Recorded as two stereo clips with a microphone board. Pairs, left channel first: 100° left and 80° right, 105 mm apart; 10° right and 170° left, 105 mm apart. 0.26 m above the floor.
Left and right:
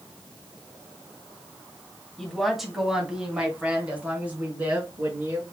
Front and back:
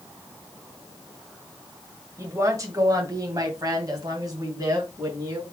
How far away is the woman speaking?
About 1.6 m.